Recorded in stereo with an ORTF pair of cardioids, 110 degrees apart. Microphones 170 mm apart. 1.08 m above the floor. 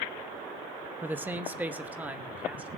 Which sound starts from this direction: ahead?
A man speaking, at 1.0 s.